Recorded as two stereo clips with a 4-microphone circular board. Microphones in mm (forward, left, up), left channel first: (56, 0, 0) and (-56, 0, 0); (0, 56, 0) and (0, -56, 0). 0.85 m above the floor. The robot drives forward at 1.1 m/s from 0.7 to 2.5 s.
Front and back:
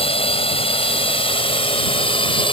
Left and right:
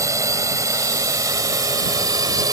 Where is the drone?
30° right; by 2.5 s 35° right.